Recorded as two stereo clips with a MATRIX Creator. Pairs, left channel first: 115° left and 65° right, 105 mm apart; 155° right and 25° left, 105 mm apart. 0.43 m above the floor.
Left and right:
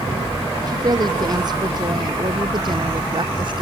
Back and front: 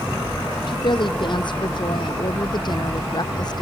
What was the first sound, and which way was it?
A woman speaking, 115° right.